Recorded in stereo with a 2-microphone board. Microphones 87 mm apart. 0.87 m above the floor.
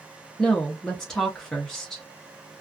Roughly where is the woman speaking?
Centre.